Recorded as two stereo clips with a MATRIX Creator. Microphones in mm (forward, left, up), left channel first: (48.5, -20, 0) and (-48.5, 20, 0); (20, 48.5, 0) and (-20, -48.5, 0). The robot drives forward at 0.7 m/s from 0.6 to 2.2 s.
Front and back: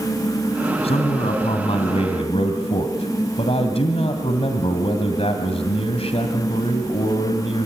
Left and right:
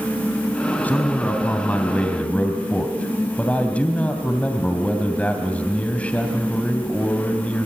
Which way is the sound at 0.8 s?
5° right.